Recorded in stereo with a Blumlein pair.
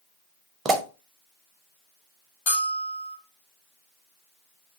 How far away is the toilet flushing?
I don't hear a toilet flushing.